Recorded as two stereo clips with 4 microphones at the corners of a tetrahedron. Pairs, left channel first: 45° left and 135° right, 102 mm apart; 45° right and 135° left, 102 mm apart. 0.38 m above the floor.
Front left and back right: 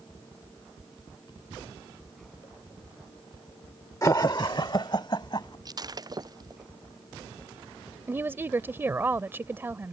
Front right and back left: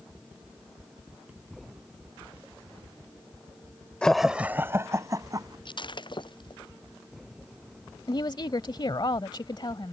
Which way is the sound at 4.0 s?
25° left.